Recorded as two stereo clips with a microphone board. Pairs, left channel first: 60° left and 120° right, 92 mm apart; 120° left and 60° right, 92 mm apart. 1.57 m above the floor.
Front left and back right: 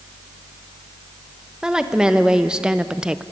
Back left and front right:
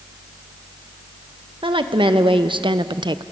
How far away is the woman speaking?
About 1.5 m.